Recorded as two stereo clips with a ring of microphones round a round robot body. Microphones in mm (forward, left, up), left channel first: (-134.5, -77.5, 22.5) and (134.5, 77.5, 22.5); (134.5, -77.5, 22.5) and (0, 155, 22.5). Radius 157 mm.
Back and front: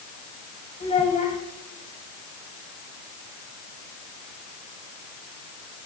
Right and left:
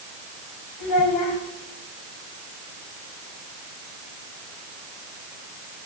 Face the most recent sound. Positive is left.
turn(degrees=-80)